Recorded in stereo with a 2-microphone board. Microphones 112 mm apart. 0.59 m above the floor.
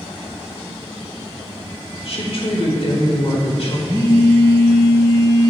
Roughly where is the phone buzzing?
Right.